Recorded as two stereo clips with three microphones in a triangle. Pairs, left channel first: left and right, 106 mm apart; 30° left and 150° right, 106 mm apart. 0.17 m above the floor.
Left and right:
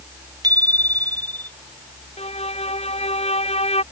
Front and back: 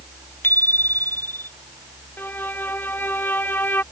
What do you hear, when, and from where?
0.4 s a bicycle bell: 40° right
2.2 s a violin: 100° left